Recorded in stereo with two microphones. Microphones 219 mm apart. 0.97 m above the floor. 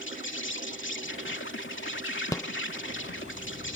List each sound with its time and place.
0.0 s an insect: 65° left (ahead or behind)
2.3 s a rattle: 15° left (ahead or behind)